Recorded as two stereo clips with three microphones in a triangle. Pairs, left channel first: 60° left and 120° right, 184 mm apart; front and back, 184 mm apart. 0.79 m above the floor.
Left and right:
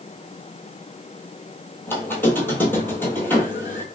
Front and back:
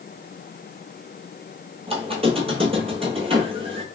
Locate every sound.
1.9 s a squeak: 135° left, 1.0 m